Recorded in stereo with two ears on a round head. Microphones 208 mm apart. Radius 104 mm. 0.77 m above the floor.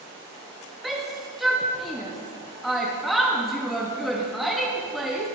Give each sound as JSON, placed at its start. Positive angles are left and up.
{"t": 0.8, "sound": "a shout", "side_deg": 0, "distance_m": 1.2}